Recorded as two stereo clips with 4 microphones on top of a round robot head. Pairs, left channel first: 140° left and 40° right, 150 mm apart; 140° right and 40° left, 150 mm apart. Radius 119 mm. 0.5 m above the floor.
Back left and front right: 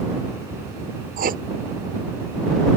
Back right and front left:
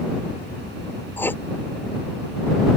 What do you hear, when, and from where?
1.2 s writing: 65° right